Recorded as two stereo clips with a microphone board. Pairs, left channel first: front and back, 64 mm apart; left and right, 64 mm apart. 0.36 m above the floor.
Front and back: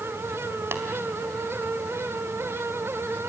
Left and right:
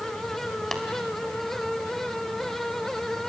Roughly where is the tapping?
Behind.